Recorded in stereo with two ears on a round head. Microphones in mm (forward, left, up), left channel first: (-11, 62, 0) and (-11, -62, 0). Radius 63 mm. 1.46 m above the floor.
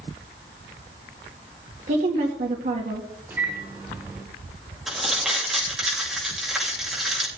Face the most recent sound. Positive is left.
turn(degrees=0)  # may be behind; listen again after turning